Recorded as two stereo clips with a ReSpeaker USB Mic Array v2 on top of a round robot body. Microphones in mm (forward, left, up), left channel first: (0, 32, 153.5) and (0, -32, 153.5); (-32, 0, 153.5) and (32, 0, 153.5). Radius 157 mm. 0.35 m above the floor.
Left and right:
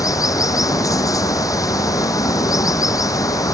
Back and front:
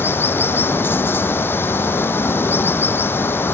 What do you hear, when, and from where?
0.0 s running water: 125° left